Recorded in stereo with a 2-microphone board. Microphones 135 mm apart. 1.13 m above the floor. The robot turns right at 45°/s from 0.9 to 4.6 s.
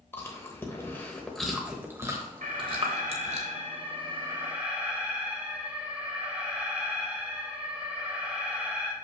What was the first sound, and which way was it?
Chewing, 20° left (ahead or behind).